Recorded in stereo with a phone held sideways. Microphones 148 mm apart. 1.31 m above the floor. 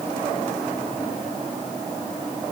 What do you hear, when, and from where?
Only background noise.